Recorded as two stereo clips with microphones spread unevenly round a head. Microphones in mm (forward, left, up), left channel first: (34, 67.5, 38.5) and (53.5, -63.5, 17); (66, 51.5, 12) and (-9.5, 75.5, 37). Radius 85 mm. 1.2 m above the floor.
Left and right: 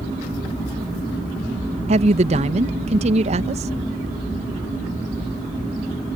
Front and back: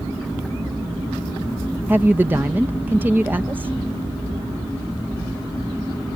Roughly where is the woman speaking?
Behind right.